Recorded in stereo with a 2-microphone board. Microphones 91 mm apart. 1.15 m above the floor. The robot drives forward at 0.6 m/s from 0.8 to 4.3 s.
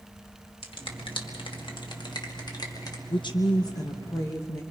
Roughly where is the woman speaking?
Left.